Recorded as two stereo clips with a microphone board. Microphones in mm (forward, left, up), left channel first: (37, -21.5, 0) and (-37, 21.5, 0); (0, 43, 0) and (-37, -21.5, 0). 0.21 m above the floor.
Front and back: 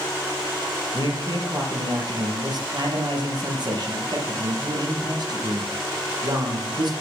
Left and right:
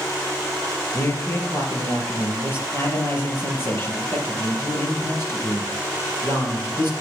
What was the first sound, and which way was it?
A man speaking, 120° left.